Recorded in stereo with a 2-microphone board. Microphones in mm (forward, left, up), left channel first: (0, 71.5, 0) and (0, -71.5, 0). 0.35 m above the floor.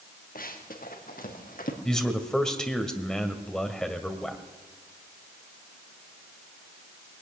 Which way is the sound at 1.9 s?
5° left (ahead or behind).